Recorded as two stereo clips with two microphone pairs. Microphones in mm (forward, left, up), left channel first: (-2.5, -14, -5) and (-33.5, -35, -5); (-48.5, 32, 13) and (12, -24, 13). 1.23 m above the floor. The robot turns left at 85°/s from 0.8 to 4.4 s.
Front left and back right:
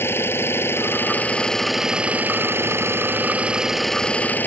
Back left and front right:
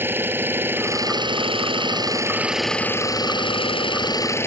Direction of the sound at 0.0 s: 25° left.